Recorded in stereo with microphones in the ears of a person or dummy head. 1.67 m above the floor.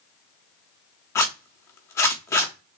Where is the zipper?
10° left (ahead or behind), 0.9 m.